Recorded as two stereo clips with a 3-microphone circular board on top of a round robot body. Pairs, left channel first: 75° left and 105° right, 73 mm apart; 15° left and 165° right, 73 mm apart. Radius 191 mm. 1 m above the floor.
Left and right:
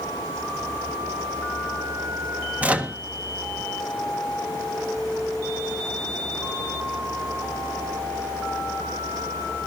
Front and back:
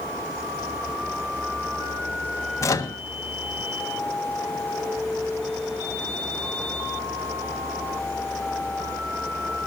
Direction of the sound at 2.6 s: 35° right.